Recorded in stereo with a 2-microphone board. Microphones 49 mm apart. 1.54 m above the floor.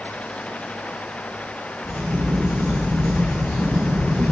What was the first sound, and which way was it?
A crack, 85° right.